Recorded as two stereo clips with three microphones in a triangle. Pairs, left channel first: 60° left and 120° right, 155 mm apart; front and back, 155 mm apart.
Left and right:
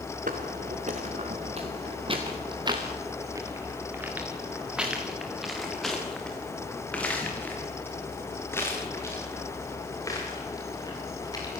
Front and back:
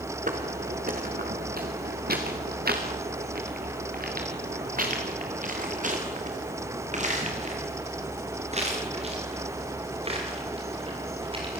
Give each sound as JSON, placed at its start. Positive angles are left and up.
{"t": 0.3, "sound": "footsteps", "azimuth_deg": -150, "distance_m": 4.5}